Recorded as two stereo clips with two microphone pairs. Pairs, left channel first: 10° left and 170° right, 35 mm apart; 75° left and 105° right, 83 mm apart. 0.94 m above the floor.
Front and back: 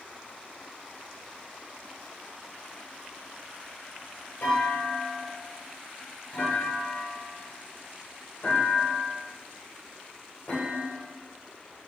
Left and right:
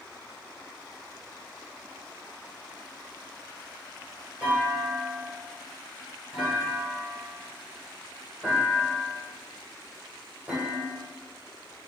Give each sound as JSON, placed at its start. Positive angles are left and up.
{"t": 4.4, "sound": "a clunk", "azimuth_deg": -35, "distance_m": 3.5}